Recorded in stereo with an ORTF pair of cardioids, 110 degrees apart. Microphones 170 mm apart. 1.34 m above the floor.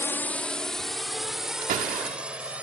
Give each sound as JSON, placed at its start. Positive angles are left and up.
{"t": 0.0, "sound": "a drone", "azimuth_deg": 15}
{"t": 1.6, "sound": "a door slam", "azimuth_deg": -60}